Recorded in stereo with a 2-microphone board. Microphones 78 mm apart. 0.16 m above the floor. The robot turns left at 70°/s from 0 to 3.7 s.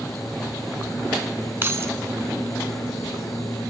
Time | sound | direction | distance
1.6 | keys jangling | 35° right (ahead or behind) | 0.9 m